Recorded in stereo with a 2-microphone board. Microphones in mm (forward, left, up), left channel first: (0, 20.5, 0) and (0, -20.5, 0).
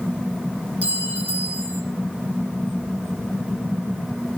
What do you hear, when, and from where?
0.8 s a clink: 40° right (ahead or behind), 3 m